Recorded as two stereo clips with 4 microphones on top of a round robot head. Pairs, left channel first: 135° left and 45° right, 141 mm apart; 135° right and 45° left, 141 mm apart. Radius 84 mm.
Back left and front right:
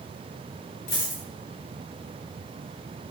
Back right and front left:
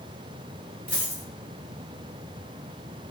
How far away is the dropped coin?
About 1.0 m.